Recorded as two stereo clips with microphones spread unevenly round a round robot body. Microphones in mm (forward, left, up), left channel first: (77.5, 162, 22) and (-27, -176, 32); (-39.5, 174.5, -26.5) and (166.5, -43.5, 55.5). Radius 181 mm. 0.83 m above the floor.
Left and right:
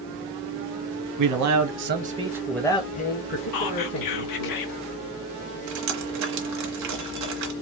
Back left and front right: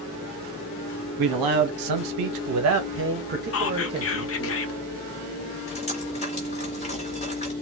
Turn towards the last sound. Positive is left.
turn(degrees=-145)